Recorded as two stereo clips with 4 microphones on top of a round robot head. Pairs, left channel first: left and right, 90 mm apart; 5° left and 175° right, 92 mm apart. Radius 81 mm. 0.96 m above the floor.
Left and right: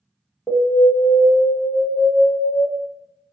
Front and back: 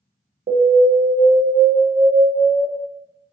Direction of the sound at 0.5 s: Straight behind.